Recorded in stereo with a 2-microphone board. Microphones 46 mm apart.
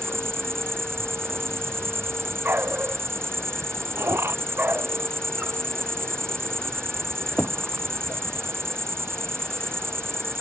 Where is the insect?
65° right (ahead or behind).